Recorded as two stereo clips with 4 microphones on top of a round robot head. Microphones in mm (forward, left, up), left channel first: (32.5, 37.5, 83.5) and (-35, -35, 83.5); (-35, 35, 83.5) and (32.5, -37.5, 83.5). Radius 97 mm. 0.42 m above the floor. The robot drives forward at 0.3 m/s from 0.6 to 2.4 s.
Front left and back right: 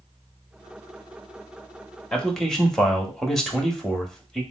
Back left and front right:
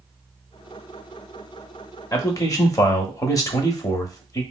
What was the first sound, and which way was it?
A man speaking, 120° left.